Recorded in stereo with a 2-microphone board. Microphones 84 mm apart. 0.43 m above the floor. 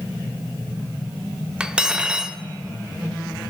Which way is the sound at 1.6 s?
10° right (ahead or behind).